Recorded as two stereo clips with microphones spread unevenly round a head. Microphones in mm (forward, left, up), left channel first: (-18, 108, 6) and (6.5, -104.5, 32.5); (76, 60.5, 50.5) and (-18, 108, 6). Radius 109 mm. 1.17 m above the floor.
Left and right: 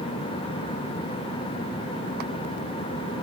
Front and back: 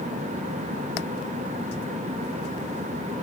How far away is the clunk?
I don't hear a clunk.